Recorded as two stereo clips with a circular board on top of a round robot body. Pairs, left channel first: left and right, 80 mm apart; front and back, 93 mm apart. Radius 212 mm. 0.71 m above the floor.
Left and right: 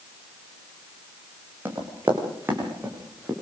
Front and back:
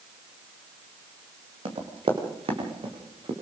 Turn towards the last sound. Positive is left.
turn(degrees=-160)